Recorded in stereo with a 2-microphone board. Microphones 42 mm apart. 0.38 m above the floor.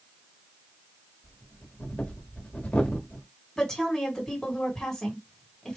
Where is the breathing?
40° left (ahead or behind), 1.3 m.